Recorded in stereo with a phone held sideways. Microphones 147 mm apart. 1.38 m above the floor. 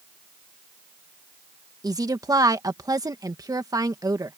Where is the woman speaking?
25° right (ahead or behind).